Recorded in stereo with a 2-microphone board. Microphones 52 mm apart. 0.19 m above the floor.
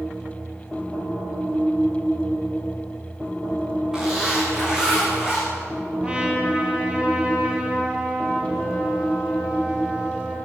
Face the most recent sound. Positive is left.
turn(degrees=-15)  # may be behind; listen again after turning